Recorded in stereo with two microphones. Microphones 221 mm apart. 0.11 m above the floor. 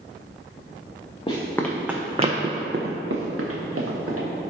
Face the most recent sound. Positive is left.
turn(degrees=-85)